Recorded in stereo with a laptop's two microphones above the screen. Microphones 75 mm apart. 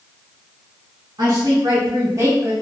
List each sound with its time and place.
1.2 s a woman speaking: 70° right (ahead or behind), 1.4 m; by 2.5 s 30° right (ahead or behind), 0.8 m